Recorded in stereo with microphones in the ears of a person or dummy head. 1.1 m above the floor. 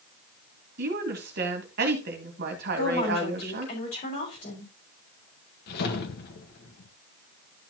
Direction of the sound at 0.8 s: 50° right (ahead or behind).